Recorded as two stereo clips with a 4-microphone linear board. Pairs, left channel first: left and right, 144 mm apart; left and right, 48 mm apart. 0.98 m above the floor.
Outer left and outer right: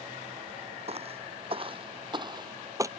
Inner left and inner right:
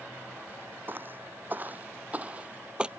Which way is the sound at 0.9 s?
45° right (ahead or behind).